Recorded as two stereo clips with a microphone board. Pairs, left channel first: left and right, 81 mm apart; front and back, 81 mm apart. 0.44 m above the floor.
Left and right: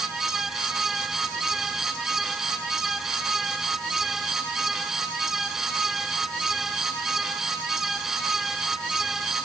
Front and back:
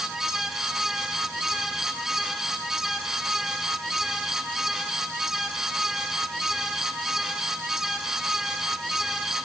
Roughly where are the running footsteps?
I don't hear running footsteps.